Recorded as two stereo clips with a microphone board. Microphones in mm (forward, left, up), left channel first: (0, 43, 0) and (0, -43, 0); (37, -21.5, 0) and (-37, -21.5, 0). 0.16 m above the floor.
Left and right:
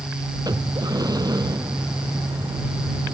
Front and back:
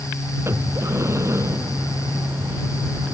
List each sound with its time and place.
0.5 s breathing: 130° right